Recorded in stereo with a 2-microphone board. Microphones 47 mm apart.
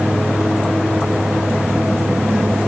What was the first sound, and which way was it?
Only background noise.